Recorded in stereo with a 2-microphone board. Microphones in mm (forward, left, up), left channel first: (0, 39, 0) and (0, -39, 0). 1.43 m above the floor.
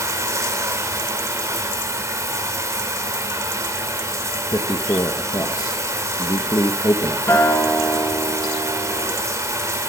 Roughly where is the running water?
Right.